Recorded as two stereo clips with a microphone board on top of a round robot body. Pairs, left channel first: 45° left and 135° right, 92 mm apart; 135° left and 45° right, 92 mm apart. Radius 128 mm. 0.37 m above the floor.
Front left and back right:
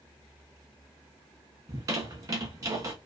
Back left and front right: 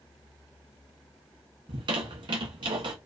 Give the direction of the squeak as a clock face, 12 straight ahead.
3 o'clock.